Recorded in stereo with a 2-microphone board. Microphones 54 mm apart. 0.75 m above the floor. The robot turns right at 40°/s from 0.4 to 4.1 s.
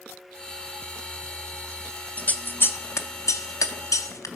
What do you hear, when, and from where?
2.2 s scissors: 30° left (ahead or behind), 0.5 m; by 4.3 s 75° left (ahead or behind), 0.5 m